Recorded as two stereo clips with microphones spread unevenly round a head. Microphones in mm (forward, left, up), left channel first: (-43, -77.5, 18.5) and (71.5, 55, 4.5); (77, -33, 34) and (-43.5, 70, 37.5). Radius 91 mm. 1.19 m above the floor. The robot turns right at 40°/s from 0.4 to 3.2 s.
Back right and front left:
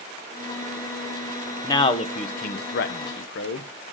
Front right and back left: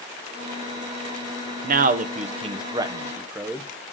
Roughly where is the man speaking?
Behind.